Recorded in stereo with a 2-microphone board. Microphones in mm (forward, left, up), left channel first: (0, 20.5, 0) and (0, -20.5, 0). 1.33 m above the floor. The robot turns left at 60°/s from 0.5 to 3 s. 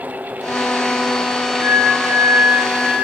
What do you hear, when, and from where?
1.6 s a flute: 65° right, 1.4 m; by 3.0 s 150° right, 1.4 m